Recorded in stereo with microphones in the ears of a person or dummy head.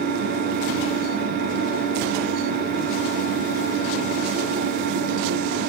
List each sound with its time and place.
0.0 s an engine running: 55° right (ahead or behind), 3 m